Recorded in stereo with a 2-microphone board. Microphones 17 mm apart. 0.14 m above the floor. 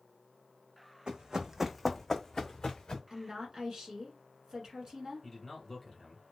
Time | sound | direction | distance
1.1 | running footsteps | 55° right (ahead or behind) | 0.6 m
3.1 | a woman speaking | 40° right (ahead or behind) | 1.4 m
5.2 | a man speaking | 10° left (ahead or behind) | 1.4 m